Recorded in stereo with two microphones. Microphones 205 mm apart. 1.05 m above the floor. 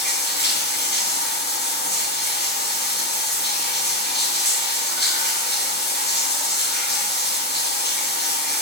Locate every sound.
0.0 s running water: 60° left (ahead or behind), 3 m